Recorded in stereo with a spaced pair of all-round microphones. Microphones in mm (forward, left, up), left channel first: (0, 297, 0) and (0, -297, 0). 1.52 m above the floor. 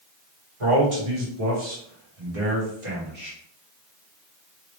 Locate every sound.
0.6 s a man speaking: 60° right (ahead or behind), 1.7 m; by 3.4 s 45° right (ahead or behind), 1.8 m